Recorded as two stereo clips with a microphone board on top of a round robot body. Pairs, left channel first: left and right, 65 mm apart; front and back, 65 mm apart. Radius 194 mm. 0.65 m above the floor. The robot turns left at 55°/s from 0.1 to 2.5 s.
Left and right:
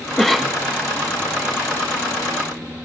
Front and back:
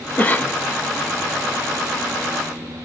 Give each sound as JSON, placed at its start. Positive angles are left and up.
{"t": 0.2, "sound": "a cough", "azimuth_deg": 10, "distance_m": 0.6}